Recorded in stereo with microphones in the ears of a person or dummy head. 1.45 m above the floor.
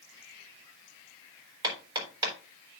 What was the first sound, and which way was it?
Hammering, 30° right (ahead or behind).